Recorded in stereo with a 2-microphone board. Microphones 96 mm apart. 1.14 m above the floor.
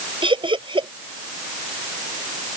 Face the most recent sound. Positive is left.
turn(degrees=-60)  # may be behind; listen again after turning